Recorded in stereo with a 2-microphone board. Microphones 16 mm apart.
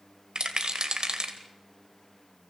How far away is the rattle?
About 2 m.